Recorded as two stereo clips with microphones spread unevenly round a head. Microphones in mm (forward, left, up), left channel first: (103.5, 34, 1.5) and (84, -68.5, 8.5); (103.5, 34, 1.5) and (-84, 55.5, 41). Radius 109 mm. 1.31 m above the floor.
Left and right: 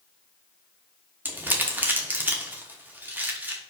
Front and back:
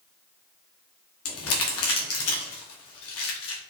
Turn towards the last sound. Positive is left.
turn(degrees=-35)